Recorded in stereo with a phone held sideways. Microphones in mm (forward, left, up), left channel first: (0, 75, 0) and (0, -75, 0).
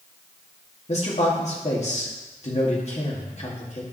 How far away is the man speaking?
About 2 m.